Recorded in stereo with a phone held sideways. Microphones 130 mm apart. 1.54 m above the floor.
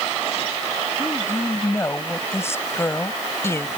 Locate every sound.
1.0 s a woman speaking: 20° left (ahead or behind)